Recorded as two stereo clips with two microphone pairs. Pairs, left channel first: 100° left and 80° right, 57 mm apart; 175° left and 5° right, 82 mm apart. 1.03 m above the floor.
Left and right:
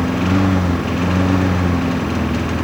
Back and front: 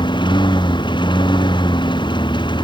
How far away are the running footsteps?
No running footsteps in this recording.